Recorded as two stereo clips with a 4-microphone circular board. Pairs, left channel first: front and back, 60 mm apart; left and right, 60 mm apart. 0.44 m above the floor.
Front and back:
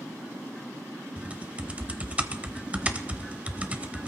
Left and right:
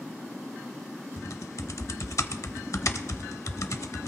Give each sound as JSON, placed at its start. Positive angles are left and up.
{"t": 1.2, "sound": "typing on a keyboard", "azimuth_deg": 115, "distance_m": 0.8}